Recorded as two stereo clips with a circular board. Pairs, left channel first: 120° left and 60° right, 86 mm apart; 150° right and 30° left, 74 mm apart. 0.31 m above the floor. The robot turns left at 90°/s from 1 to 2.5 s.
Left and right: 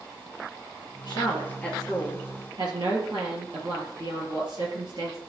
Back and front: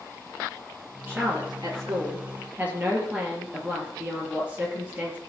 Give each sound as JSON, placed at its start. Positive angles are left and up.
{"t": 1.1, "sound": "a woman speaking", "azimuth_deg": 90, "distance_m": 5.5}